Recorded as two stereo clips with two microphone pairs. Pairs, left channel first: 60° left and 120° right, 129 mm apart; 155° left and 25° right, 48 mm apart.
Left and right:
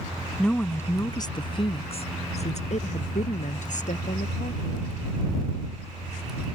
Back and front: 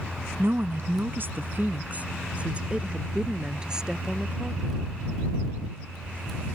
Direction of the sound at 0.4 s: 30° right.